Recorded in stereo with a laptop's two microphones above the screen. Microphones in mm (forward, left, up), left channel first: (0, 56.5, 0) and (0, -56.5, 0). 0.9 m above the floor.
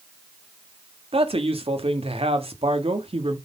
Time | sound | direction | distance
1.1 | a man speaking | 60° right (ahead or behind) | 2 m